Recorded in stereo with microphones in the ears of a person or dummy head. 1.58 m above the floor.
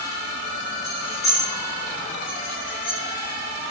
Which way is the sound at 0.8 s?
5° left (ahead or behind).